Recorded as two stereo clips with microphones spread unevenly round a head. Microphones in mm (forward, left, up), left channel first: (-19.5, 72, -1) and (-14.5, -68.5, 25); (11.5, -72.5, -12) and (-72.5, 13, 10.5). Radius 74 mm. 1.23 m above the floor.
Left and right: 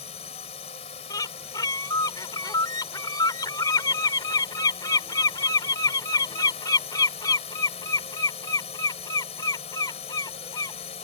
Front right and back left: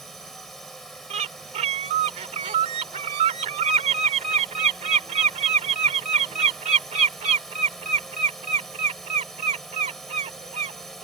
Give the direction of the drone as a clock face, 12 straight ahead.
11 o'clock.